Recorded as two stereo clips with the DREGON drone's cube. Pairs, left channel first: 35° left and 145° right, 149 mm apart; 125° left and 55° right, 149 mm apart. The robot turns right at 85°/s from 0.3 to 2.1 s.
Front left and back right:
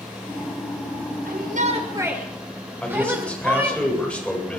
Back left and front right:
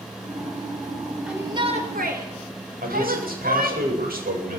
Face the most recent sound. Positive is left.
turn(degrees=-50)